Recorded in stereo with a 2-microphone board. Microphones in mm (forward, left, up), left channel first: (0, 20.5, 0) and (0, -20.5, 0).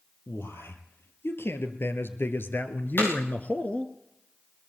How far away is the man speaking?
About 3 m.